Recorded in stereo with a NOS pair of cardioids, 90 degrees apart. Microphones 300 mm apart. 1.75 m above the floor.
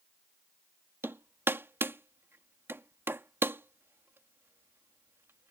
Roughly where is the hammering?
Ahead.